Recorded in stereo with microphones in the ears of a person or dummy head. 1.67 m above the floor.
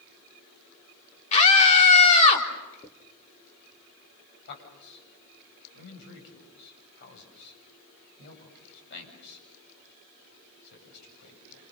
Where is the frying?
No frying in this recording.